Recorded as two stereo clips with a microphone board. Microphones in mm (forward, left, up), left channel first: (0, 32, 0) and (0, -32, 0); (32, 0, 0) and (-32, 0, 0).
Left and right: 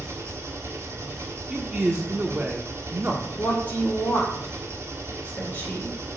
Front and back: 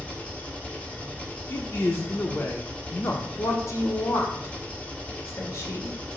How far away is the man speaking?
About 1.0 m.